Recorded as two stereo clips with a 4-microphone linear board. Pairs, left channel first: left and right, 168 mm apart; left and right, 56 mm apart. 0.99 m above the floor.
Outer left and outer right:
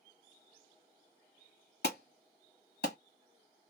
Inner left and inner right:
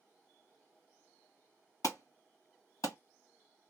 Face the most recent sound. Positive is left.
turn(degrees=75)  # may be behind; listen again after turning